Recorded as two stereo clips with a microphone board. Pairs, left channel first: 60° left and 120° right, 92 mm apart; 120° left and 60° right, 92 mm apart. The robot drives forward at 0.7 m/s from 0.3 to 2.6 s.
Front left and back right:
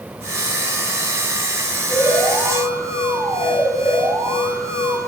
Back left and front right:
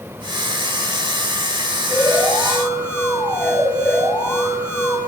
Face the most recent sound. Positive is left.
turn(degrees=180)